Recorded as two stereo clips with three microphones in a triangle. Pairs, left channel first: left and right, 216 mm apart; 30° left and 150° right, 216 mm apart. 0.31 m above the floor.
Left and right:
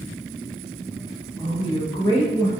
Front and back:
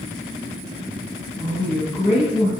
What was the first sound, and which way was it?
A woman speaking, 30° left.